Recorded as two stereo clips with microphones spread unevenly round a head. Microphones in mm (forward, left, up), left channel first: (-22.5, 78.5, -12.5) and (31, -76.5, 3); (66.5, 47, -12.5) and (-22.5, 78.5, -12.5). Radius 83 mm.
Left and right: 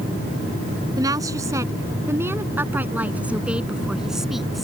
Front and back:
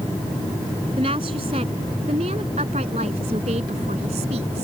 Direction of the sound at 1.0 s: 140° right.